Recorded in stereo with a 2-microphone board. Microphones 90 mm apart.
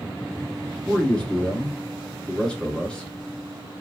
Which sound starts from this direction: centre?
A man speaking, at 0.8 s.